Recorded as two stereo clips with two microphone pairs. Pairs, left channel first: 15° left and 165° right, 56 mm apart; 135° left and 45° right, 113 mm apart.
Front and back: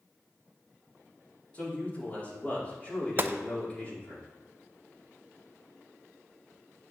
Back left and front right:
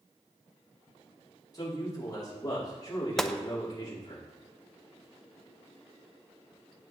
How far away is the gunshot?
About 0.5 m.